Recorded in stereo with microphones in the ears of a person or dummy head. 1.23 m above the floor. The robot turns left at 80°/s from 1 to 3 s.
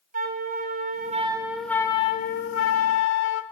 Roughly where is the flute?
Behind right.